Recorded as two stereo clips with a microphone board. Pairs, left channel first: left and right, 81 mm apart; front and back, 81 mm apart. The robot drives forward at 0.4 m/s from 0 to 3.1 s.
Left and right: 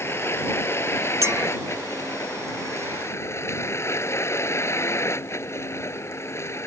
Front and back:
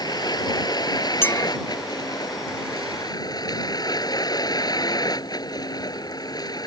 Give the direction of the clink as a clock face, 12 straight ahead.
2 o'clock.